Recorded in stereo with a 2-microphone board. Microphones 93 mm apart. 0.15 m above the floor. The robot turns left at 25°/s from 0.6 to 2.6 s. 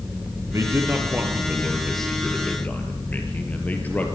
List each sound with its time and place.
0.5 s a man speaking: 150° right, 3 m; by 4.1 s 160° left, 3 m